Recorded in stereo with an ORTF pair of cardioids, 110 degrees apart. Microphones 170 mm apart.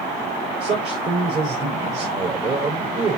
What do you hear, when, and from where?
0.6 s a man speaking: 45° right, 6 m